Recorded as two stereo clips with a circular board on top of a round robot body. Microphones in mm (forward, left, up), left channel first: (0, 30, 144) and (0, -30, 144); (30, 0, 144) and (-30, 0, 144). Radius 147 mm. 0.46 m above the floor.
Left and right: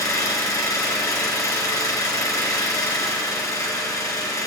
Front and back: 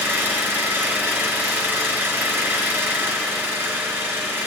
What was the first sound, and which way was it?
An engine running, 120° left.